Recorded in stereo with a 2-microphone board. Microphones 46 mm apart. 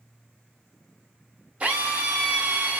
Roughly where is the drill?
Right.